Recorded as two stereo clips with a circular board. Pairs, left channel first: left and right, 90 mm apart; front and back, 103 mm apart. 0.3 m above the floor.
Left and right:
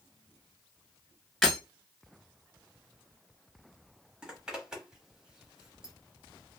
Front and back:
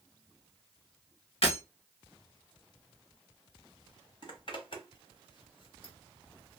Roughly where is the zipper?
Ahead.